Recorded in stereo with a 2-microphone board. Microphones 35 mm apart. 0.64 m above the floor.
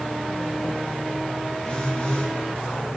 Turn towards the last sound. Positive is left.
turn(degrees=30)  # may be behind; listen again after turning